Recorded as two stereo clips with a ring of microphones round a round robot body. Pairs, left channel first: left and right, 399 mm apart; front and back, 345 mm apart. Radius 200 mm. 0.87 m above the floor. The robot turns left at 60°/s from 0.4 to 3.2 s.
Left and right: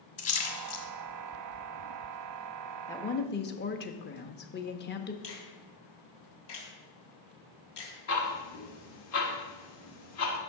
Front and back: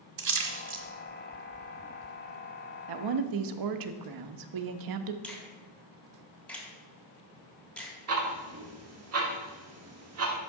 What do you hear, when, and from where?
0.2 s a splash: 160° left, 1.3 m; by 0.8 s 135° left, 1.3 m
2.9 s a woman speaking: 175° left, 0.8 m; by 5.1 s 155° left, 0.8 m
5.2 s a finger snap: 90° left, 3 m
8.1 s ticking: 140° left, 1.6 m